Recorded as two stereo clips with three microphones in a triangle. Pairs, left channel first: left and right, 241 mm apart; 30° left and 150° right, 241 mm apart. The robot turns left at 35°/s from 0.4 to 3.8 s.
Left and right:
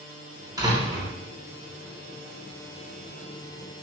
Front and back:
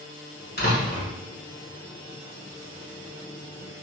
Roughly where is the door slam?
Ahead.